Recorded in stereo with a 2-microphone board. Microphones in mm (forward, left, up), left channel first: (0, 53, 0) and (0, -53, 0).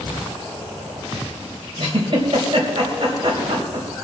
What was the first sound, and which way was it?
A giggle, 50° right (ahead or behind).